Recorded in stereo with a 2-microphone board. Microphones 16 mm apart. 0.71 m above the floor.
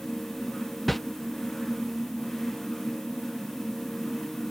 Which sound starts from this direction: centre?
A whoosh, at 0.9 s.